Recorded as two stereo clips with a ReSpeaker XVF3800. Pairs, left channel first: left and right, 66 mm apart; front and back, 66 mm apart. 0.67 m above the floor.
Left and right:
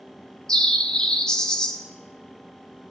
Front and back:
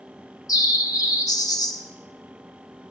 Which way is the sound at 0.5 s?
10° left.